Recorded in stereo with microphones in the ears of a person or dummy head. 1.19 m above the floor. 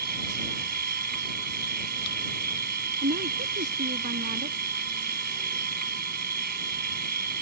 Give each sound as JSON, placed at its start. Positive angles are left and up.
{"t": 0.0, "sound": "a machine running", "side_deg": -45}
{"t": 3.0, "sound": "a woman speaking", "side_deg": -45}